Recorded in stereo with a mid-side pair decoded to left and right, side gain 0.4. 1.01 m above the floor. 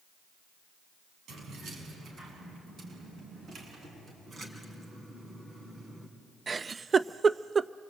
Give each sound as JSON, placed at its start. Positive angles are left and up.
{"t": 1.3, "sound": "keys jangling", "azimuth_deg": -70, "distance_m": 7.0}
{"t": 4.3, "sound": "a splash", "azimuth_deg": -45, "distance_m": 5.0}
{"t": 6.5, "sound": "a giggle", "azimuth_deg": -40, "distance_m": 0.5}